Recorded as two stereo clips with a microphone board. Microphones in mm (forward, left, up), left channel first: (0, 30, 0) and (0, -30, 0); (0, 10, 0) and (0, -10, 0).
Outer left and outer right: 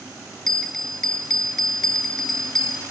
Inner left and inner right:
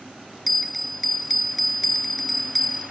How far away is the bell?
About 0.7 m.